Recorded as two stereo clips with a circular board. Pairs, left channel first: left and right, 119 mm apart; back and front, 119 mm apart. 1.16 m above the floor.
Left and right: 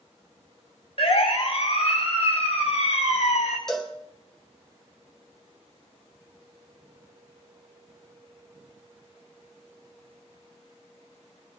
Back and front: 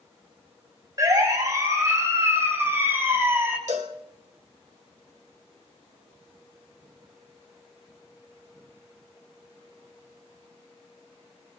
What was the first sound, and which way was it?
A siren, 60° left.